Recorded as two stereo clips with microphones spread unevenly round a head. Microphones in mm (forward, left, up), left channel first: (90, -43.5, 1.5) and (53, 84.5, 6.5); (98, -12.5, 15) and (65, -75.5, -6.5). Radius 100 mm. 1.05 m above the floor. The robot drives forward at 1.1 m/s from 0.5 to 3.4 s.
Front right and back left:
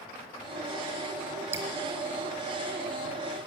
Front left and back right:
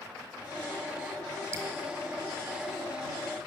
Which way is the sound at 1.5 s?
175° left.